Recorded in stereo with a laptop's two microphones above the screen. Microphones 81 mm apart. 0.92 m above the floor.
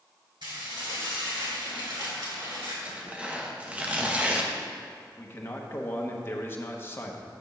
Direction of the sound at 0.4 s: 75° right (ahead or behind).